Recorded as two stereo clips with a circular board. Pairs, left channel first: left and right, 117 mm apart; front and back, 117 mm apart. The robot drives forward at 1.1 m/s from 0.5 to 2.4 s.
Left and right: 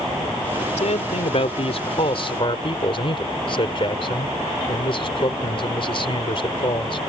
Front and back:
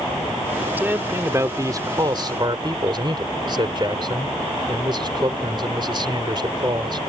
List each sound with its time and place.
0.8 s a man speaking: 105° left; by 7.0 s 130° left